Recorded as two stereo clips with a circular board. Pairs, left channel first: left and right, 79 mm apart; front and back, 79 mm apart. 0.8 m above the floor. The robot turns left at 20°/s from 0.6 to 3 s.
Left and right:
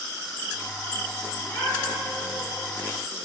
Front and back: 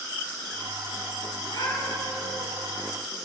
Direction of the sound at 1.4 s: 40° left.